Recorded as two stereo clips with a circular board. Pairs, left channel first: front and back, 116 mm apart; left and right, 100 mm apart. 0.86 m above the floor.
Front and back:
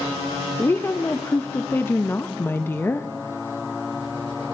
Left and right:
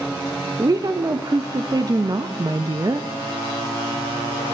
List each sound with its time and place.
0.6 s a woman speaking: 60° right, 0.6 m